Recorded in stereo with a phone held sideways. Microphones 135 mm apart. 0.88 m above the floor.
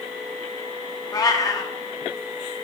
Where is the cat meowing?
30° left (ahead or behind), 0.6 m.